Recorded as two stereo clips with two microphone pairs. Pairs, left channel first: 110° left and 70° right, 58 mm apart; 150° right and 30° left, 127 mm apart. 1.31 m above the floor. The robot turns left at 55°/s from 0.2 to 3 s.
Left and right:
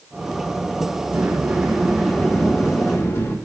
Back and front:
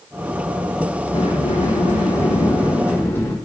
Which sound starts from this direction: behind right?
A sliding door, at 1.1 s.